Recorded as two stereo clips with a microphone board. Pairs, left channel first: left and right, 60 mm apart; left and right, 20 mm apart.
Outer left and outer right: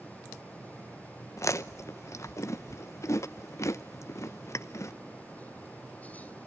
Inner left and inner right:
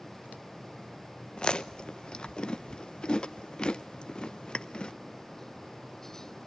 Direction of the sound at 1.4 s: 55° left (ahead or behind).